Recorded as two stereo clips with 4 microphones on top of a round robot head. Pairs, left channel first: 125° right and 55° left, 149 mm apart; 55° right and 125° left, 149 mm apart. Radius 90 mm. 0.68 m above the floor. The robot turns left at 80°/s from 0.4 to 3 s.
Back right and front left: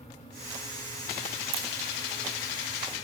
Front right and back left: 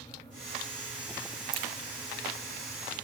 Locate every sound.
1.5 s a crack: 70° left, 1.1 m; by 1.7 s 60° left, 1.1 m